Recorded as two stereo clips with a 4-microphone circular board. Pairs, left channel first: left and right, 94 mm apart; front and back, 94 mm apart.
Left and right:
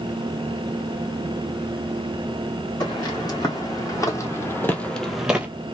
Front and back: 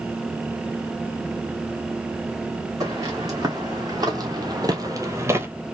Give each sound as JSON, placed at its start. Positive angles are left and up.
{"t": 2.8, "sound": "footsteps", "azimuth_deg": 130, "distance_m": 2.5}